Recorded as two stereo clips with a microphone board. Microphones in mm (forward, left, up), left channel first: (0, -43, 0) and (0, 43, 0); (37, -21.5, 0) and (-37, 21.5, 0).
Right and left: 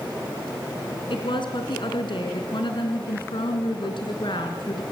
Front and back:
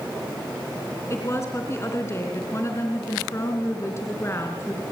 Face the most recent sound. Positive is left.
turn(degrees=-85)